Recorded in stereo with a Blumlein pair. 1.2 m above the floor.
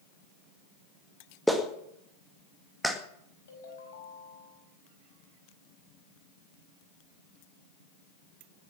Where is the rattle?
I don't hear a rattle.